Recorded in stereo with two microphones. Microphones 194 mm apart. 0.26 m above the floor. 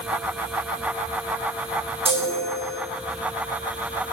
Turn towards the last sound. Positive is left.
turn(degrees=-30)  # may be behind; listen again after turning